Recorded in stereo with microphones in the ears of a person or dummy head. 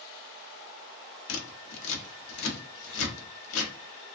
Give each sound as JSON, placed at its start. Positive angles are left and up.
{"t": 1.3, "sound": "scissors", "side_deg": 75, "distance_m": 0.7}